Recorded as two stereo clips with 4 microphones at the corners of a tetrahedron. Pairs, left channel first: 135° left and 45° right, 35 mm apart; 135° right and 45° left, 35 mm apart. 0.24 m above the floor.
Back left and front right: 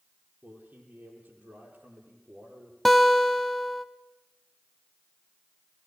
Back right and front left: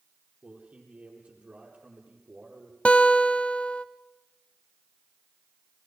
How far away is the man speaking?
About 9.5 m.